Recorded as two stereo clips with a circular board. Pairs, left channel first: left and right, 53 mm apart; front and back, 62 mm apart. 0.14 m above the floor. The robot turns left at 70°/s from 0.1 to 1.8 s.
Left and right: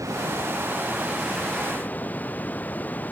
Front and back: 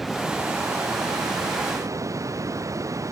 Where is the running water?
95° right; by 3.1 s 150° left.